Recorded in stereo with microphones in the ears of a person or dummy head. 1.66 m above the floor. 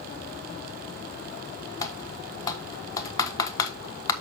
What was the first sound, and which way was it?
Typing on a keyboard, 30° left (ahead or behind).